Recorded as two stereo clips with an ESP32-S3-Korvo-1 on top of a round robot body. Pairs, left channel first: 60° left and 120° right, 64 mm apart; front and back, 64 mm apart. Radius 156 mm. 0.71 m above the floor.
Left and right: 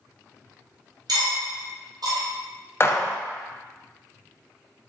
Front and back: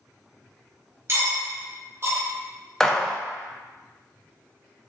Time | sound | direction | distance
1.1 | cutlery clinking | 130° right | 0.8 m
2.8 | a gunshot | 80° left | 0.5 m